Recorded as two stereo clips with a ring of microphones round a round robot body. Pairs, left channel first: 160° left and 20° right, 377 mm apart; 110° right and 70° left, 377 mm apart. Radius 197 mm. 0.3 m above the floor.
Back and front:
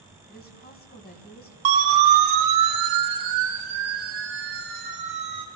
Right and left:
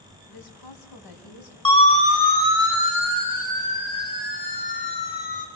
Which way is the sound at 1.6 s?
35° right.